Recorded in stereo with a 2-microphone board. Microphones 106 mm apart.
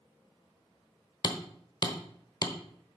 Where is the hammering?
40° left (ahead or behind), 1.0 m.